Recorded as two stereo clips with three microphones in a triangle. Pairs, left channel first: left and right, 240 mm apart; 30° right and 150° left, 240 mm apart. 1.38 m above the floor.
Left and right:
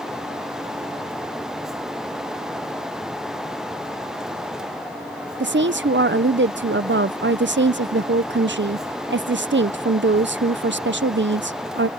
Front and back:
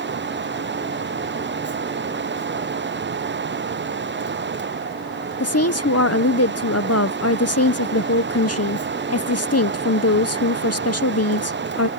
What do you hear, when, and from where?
5.4 s a woman speaking: 45° right